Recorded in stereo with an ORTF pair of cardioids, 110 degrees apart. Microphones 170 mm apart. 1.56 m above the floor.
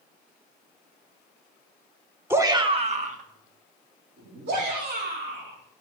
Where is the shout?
15° right, 1.4 m; by 5.6 s 75° right, 5 m.